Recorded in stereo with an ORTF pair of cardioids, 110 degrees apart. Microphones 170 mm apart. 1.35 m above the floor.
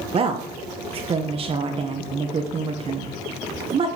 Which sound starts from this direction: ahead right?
A woman speaking, at 0.1 s.